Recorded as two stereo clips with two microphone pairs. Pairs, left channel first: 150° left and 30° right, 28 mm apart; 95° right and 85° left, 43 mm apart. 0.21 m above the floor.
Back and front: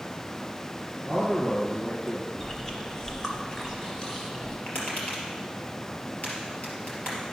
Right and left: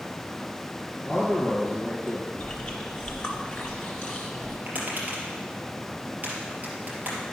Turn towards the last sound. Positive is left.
turn(degrees=140)